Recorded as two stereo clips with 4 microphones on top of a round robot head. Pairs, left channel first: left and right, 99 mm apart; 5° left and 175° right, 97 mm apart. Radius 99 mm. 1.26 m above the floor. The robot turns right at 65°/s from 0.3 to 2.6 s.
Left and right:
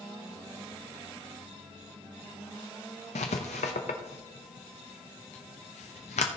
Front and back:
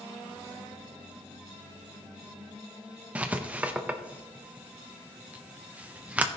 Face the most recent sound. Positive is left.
turn(degrees=115)